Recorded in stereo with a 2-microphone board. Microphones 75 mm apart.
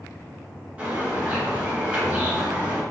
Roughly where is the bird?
Right.